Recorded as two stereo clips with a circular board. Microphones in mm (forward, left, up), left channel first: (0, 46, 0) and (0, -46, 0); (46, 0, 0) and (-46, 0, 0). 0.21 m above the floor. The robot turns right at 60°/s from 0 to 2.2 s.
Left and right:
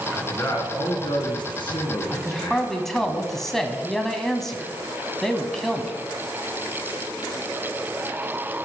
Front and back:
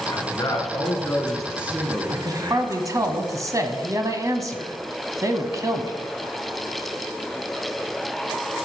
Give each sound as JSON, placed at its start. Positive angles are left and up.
{"t": 0.1, "sound": "a man speaking", "azimuth_deg": 15, "distance_m": 2.5}
{"t": 2.1, "sound": "a man speaking", "azimuth_deg": 170, "distance_m": 1.3}